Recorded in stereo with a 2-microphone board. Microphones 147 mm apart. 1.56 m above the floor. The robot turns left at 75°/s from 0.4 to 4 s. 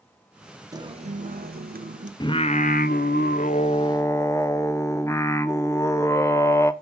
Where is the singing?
155° left, 1.0 m; by 6.7 s 20° left, 1.0 m.